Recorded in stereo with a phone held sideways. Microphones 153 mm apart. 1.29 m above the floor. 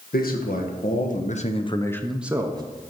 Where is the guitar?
No guitar in this recording.